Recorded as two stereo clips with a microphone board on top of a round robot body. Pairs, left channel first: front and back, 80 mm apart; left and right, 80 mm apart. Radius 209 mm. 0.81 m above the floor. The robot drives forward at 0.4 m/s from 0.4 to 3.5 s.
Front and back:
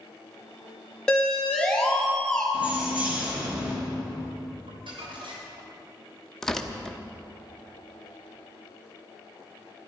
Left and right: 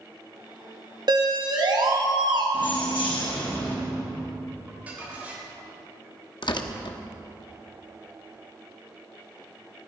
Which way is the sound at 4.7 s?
165° right.